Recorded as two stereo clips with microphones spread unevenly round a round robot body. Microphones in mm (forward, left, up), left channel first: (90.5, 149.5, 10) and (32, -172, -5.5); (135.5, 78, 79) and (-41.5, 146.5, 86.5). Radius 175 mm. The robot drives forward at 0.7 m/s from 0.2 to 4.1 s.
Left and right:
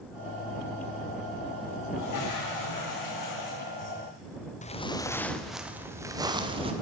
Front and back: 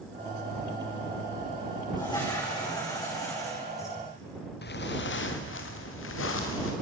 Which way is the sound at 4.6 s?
10° left.